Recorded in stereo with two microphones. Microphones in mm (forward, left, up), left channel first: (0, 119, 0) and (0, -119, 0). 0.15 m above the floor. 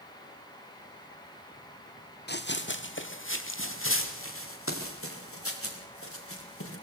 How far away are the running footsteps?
About 1.9 m.